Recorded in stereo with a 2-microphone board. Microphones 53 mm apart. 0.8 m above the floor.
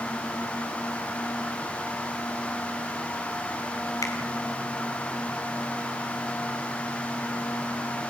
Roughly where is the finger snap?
Left.